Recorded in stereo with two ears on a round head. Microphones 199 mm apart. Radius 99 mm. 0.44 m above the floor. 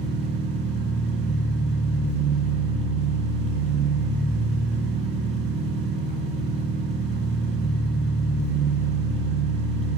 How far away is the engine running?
About 3 m.